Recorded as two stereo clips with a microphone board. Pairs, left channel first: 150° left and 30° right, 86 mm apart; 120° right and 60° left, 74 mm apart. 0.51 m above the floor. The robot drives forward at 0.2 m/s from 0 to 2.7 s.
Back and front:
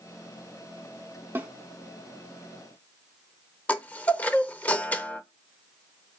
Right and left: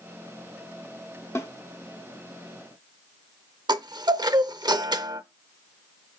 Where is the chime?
80° left, 0.5 m.